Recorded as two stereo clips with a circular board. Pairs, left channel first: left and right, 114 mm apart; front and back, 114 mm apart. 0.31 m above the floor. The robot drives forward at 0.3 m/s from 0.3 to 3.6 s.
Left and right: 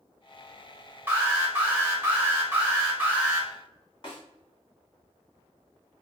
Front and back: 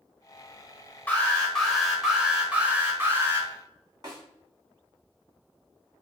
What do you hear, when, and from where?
1.1 s an alarm: 55° right, 1.0 m; by 3.5 s 150° right, 1.1 m
4.0 s a snare drum: 130° left, 1.5 m